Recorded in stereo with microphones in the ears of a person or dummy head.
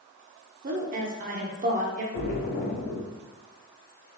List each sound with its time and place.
0.6 s a woman speaking: 35° right (ahead or behind), 0.7 m
2.1 s a splash: 45° left (ahead or behind), 1.1 m